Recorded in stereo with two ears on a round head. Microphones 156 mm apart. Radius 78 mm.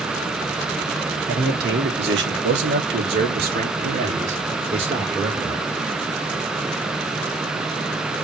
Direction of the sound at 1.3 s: 60° right (ahead or behind).